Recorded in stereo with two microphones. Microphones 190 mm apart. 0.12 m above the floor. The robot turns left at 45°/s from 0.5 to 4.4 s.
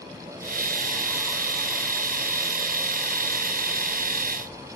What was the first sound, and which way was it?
Only background noise.